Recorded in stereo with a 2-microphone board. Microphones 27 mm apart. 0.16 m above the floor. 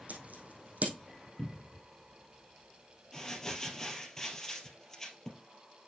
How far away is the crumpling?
About 2.5 m.